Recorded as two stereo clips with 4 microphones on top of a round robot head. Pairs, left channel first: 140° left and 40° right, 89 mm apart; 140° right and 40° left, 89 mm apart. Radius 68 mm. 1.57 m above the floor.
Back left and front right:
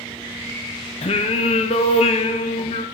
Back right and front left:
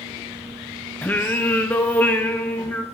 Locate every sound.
1.0 s singing: 145° left, 0.8 m